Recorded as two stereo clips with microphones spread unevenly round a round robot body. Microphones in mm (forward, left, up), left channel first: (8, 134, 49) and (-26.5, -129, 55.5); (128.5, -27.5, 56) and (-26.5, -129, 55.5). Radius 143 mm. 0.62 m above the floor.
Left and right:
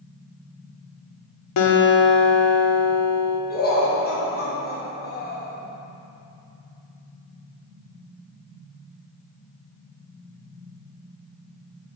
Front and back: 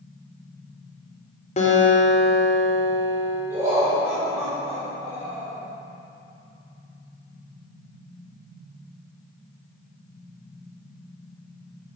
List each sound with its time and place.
1.6 s a guitar: 90° left, 1.4 m
3.5 s laughter: 135° left, 3.5 m